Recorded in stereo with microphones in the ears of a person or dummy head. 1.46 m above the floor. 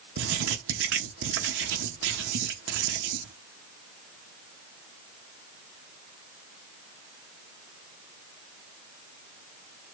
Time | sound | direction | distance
0.2 | writing | 65° right (ahead or behind) | 1.0 m